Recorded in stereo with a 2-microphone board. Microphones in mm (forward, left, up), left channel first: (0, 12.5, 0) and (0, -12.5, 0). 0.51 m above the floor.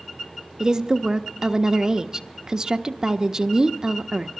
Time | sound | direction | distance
0.6 | a woman speaking | 30° right (ahead or behind) | 0.7 m